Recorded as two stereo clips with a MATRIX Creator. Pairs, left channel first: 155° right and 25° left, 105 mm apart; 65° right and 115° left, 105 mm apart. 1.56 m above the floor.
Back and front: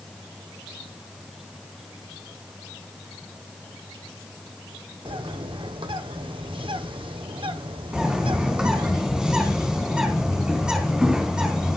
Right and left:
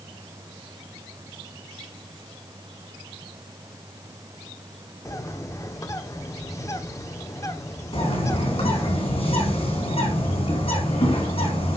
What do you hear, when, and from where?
5.0 s a bird: 10° right, 1.2 m
7.9 s a bird: 60° right, 4 m